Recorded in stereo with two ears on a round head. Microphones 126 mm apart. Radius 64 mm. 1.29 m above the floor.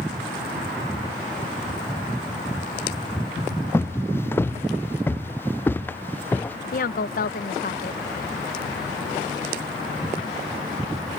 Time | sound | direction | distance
3.7 | footsteps | 15° left (ahead or behind) | ?
6.7 | a woman speaking | 70° left (ahead or behind) | ?